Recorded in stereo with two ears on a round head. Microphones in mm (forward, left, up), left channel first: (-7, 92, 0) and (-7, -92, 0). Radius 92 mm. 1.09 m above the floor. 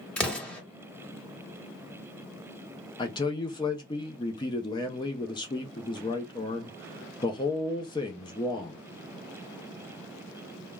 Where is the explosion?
5° left (ahead or behind), 1.2 m.